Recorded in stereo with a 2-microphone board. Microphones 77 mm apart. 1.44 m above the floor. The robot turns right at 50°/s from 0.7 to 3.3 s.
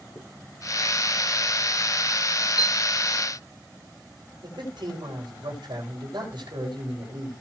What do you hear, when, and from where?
0.1 s a zipper: 40° left (ahead or behind), 5 m
2.6 s a piano: 60° left (ahead or behind), 0.7 m
4.4 s a man speaking: 90° right, 7 m